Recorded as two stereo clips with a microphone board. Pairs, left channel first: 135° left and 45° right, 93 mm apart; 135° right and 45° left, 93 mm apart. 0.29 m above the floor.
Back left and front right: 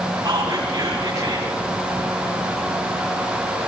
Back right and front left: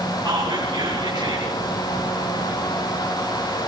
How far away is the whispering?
About 5.5 m.